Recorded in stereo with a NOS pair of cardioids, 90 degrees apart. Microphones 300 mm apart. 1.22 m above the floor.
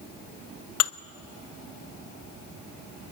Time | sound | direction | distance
0.8 | dishes clattering | 55° left | 0.8 m